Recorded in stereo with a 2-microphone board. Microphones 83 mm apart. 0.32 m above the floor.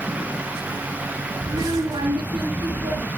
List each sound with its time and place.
1.4 s a child speaking: 65° right (ahead or behind), 4.5 m; by 3.1 s 80° right, 5.5 m